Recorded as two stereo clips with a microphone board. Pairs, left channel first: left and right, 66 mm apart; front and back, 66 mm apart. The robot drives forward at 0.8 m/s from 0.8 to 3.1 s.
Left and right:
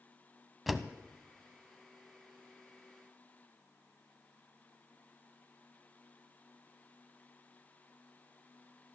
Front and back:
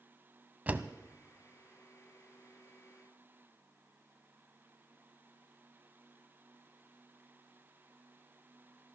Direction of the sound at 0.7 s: Straight behind.